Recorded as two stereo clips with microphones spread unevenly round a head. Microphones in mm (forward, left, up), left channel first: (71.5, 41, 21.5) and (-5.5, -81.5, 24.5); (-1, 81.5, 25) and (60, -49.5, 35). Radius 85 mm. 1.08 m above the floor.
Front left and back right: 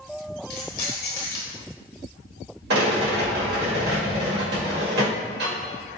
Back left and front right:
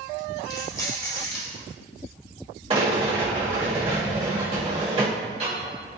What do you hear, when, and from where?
0.5 s keys jangling: 45° left, 1.2 m
2.7 s a rattle: 125° right, 1.3 m